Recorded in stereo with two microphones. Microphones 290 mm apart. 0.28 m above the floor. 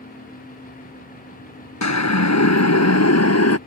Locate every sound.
1.8 s a siren: 70° left (ahead or behind); by 3.6 s 60° left (ahead or behind)